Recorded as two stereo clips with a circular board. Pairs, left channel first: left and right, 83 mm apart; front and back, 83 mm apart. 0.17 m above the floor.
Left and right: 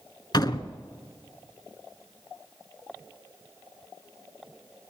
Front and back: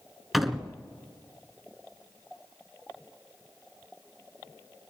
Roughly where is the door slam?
Left.